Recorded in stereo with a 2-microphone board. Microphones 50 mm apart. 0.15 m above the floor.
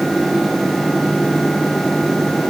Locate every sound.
Only background noise.